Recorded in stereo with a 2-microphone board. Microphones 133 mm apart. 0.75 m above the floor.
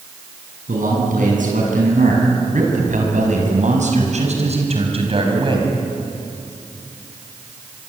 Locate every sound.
0.7 s a man speaking: 80° right, 7.5 m; by 5.7 s 35° right (ahead or behind), 5 m